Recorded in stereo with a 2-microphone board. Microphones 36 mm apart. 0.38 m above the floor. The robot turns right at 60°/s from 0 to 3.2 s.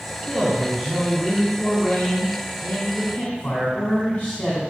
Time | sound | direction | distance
0.2 | a man speaking | 30° right | 3 m